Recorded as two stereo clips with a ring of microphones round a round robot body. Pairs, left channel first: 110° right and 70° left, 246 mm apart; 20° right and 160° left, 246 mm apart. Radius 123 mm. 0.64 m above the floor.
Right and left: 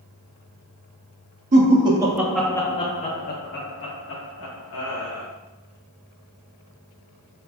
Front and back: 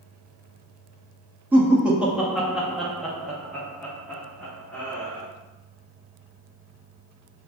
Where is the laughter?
80° left, 0.9 m; by 5.3 s 105° right, 1.7 m.